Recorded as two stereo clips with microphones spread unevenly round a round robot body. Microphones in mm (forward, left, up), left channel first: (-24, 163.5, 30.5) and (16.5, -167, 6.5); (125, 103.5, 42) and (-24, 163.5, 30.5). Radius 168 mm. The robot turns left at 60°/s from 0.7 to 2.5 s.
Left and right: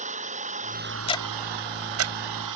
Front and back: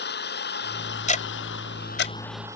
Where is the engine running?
10° right; by 2.6 s 120° right.